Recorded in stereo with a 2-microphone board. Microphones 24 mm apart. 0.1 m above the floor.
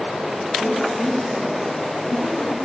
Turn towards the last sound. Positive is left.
turn(degrees=80)